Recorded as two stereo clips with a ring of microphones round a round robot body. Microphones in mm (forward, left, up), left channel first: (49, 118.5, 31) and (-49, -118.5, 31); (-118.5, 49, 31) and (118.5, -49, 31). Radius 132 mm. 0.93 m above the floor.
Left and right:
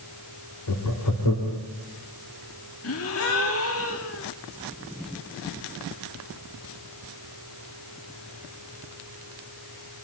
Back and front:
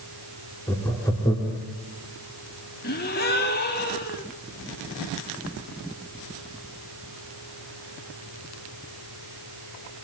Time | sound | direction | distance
0.7 | laughter | 80° left | 2.5 m
2.8 | a gasp | 105° left | 1.9 m